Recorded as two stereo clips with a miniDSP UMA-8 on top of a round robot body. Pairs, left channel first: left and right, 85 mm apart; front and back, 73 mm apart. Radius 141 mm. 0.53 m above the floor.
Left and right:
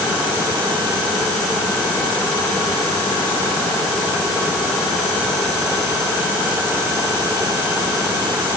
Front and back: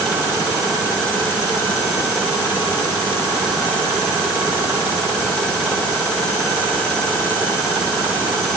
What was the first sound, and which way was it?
Only background noise.